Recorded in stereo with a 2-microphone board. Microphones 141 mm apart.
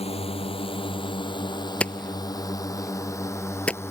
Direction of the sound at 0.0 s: 45° left (ahead or behind).